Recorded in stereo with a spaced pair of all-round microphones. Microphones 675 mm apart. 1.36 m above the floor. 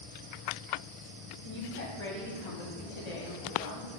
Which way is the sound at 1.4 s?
70° left (ahead or behind).